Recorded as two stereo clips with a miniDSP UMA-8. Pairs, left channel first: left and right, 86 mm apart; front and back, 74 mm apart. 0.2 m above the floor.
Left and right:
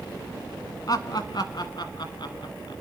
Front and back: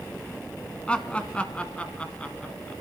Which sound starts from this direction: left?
Laughter, at 0.9 s.